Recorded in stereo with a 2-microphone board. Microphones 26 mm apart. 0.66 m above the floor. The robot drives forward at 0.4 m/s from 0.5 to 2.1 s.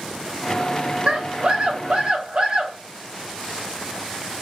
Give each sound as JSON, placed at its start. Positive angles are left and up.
{"t": 1.1, "sound": "a scream", "side_deg": -25, "distance_m": 0.8}